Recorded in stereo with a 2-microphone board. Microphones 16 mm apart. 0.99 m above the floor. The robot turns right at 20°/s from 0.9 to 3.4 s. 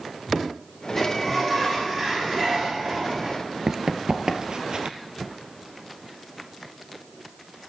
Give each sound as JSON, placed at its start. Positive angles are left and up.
{"t": 1.0, "sound": "a sliding door", "azimuth_deg": 175, "distance_m": 6.5}
{"t": 3.7, "sound": "running footsteps", "side_deg": -35, "distance_m": 1.2}